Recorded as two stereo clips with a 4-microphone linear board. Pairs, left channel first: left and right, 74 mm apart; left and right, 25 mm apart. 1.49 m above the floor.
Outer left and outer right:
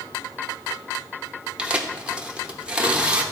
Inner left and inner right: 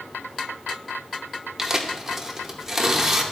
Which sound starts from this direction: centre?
Tearing paper, at 1.6 s.